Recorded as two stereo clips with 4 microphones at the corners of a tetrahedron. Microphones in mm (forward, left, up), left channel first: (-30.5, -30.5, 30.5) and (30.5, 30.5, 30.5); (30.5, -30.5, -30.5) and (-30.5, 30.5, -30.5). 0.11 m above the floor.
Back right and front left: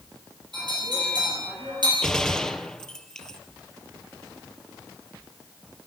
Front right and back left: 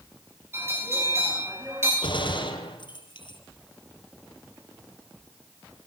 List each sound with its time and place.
0.5 s a bell: 75° left, 9 m
2.0 s a gunshot: 50° right, 3 m